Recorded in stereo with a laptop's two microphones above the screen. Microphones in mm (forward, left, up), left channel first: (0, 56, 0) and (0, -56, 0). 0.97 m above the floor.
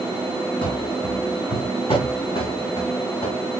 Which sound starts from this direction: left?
Running footsteps, at 0.6 s.